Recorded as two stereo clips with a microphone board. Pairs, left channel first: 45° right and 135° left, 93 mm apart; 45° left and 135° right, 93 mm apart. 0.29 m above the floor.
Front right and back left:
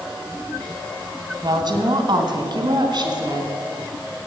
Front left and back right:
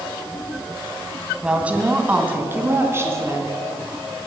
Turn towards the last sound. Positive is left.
turn(degrees=165)